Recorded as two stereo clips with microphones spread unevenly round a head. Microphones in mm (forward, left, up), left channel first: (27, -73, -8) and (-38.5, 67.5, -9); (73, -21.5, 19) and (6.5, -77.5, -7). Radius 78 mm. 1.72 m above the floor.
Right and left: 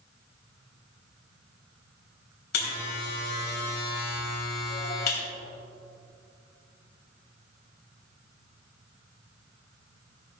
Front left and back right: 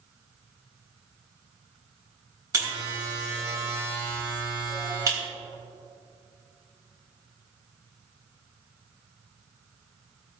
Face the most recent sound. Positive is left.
turn(degrees=-90)